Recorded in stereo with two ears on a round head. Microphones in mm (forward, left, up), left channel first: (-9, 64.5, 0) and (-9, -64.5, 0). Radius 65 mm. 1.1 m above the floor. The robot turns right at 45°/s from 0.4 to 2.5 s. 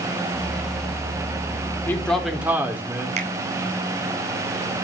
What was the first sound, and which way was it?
A man speaking, 15° left (ahead or behind).